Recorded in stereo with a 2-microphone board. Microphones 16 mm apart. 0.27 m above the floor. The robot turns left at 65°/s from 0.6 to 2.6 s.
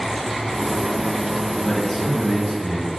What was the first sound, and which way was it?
A man speaking, 35° left.